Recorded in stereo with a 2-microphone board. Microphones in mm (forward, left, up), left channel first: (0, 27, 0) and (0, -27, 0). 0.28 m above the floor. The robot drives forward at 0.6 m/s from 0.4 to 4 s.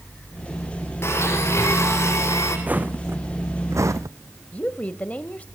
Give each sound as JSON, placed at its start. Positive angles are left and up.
{"t": 1.0, "sound": "a blender", "side_deg": 50, "distance_m": 5.0}
{"t": 2.7, "sound": "footsteps", "side_deg": -30, "distance_m": 1.4}
{"t": 4.5, "sound": "a woman speaking", "side_deg": 25, "distance_m": 1.0}